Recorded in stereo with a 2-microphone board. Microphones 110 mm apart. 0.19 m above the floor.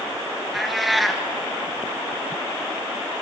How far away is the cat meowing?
About 1.5 m.